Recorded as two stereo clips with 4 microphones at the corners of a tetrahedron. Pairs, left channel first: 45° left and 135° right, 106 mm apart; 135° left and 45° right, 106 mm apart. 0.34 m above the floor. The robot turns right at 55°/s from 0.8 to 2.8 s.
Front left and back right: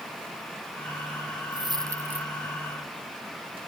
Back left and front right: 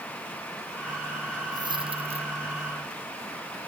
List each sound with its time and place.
1.5 s a dropped coin: 95° right; by 2.3 s 55° right